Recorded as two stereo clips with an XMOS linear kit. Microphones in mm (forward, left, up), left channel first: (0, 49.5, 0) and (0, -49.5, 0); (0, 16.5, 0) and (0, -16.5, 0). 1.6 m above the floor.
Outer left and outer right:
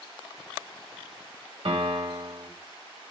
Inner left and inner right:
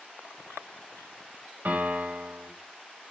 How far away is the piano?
About 1.9 m.